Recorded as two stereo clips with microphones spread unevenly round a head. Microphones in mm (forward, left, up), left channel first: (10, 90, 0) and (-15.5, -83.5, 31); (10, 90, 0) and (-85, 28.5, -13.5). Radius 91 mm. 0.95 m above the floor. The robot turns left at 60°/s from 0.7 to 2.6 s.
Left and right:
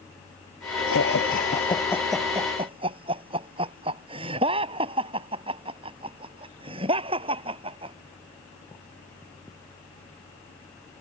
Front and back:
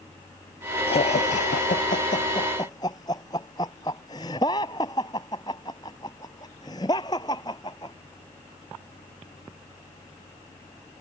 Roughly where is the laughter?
Ahead left.